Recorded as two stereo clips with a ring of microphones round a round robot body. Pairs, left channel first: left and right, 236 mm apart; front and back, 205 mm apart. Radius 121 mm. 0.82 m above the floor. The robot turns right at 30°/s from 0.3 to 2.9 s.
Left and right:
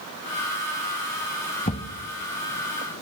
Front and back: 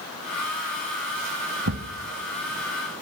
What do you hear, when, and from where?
1.7 s a thud: 155° left, 2.5 m; by 1.9 s 165° left, 2.5 m